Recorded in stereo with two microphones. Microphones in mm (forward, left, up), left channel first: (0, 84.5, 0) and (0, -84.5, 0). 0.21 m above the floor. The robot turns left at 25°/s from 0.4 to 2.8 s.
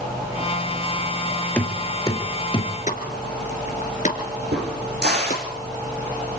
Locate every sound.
1.6 s knocking: 10° left (ahead or behind), 2.5 m; by 2.7 s 35° left (ahead or behind), 2.5 m
2.9 s a pop: 45° left (ahead or behind), 2.5 m
4.5 s a crack: 75° right (ahead or behind), 7.5 m